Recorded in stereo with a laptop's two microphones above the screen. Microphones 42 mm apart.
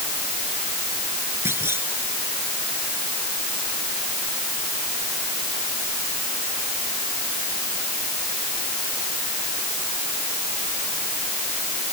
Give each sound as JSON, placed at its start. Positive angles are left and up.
{"t": 1.4, "sound": "a clunk", "side_deg": -75}